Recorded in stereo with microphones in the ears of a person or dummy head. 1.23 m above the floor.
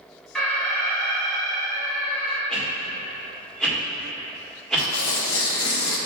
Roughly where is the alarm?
Centre.